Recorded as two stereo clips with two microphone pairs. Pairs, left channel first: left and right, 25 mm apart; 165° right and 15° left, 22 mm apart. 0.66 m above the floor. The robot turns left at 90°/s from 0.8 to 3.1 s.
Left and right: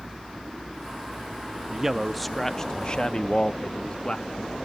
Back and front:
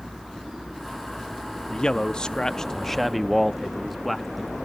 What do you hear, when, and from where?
1.7 s a man speaking: 135° right, 0.5 m; by 4.5 s 95° left, 0.5 m